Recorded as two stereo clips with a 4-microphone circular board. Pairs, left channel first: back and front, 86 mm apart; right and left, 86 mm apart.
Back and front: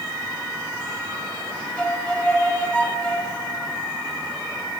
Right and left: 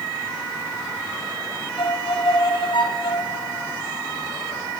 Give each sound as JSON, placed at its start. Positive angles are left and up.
{"t": 1.8, "sound": "a violin", "azimuth_deg": -105, "distance_m": 2.0}